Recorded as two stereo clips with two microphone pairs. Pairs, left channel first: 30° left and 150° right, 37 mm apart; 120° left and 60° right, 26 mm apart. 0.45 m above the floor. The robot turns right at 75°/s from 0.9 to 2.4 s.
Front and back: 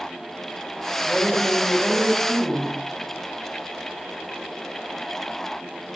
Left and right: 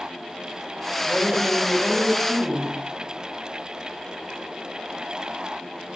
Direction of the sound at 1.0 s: 65° left.